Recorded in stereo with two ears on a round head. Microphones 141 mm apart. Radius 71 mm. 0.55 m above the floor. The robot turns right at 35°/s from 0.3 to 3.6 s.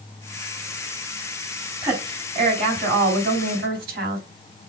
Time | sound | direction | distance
1.8 | a woman speaking | 160° right | 4 m